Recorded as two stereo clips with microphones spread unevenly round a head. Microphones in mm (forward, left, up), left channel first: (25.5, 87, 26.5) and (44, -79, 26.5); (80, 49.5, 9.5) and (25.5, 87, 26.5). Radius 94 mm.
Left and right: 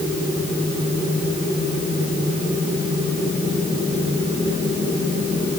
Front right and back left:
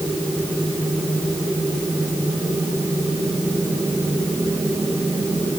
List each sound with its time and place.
Only background noise.